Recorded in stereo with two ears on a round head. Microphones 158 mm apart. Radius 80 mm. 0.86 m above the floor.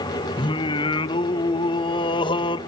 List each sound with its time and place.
0.4 s singing: 30° left (ahead or behind), 0.8 m